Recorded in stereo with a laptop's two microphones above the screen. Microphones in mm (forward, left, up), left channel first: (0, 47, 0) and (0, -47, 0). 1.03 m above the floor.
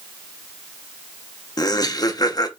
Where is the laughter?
45° left (ahead or behind), 0.7 m.